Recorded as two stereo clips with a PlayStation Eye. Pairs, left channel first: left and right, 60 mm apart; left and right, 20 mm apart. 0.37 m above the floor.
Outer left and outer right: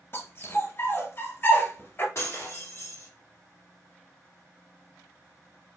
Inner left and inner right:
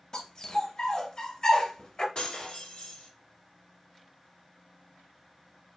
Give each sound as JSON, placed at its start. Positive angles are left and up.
{"t": 0.1, "sound": "a dog barking", "side_deg": 40, "distance_m": 1.3}
{"t": 2.1, "sound": "breaking glass", "side_deg": 50, "distance_m": 1.0}